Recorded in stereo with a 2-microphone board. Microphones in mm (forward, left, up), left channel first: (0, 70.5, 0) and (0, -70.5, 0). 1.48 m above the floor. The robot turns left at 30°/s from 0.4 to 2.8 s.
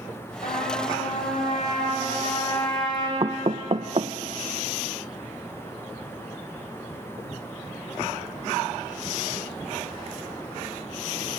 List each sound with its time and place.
0.4 s a trumpet: 105° left, 7.5 m; by 3.1 s 35° left, 7.5 m
3.2 s knocking: 45° right (ahead or behind), 0.7 m